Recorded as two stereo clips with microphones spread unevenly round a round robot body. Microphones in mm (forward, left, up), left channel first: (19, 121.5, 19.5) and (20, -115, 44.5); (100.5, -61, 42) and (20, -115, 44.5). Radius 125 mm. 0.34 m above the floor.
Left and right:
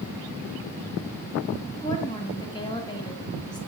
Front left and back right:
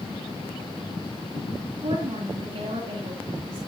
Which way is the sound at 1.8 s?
160° left.